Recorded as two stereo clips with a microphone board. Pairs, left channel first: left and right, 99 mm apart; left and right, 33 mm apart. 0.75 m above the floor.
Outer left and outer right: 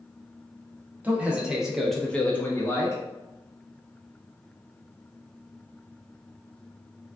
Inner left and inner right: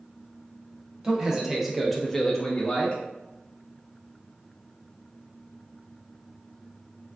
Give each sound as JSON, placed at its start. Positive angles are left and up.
{"t": 1.0, "sound": "a man speaking", "side_deg": -15, "distance_m": 0.8}